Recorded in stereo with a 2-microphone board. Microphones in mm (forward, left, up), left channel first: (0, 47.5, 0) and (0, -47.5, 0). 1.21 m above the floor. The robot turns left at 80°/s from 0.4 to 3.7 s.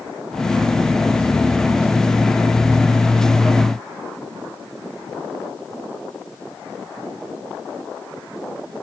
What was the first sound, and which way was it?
Only background noise.